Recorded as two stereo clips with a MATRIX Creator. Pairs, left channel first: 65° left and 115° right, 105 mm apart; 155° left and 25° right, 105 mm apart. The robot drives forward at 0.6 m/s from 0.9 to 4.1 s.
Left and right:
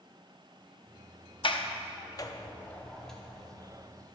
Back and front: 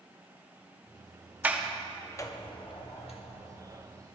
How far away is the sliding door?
About 0.6 m.